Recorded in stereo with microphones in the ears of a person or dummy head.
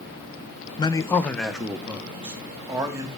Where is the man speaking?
25° left (ahead or behind), 0.7 m; by 3.1 s 15° right (ahead or behind), 2.5 m.